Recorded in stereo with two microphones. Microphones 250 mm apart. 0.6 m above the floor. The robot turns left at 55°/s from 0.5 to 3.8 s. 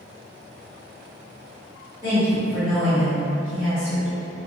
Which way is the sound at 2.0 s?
165° right.